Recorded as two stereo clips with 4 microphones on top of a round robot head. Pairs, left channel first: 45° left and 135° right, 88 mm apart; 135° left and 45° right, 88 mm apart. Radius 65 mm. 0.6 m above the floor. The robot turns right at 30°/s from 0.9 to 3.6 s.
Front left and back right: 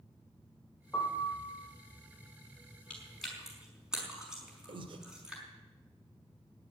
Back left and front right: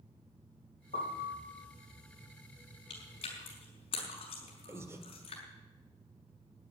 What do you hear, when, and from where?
0.9 s a piano: 120° left, 3 m; by 1.5 s 135° left, 3 m
2.9 s chewing: 125° left, 5.5 m; by 5.4 s 145° left, 5.5 m
4.7 s breathing: 105° right, 1.5 m